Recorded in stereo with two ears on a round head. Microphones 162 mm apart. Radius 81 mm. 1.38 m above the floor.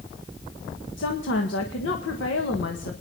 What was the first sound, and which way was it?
A woman speaking, 85° left.